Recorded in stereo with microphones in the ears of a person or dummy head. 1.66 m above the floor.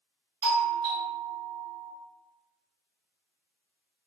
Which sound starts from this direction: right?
A doorbell, at 0.4 s.